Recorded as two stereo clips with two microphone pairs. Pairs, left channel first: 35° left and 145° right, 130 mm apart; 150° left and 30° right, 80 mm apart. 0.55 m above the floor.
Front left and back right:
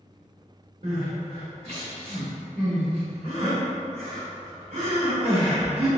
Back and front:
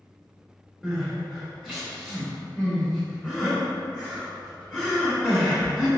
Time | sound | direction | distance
0.8 | crying | 120° right | 1.8 m